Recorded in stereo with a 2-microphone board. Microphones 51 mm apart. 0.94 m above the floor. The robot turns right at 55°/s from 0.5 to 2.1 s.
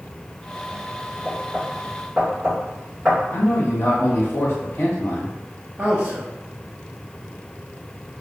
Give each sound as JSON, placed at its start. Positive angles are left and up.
{"t": 1.2, "sound": "knocking", "side_deg": 30, "distance_m": 1.4}
{"t": 3.3, "sound": "a man speaking", "side_deg": 60, "distance_m": 1.3}
{"t": 5.8, "sound": "a man speaking", "side_deg": -35, "distance_m": 0.7}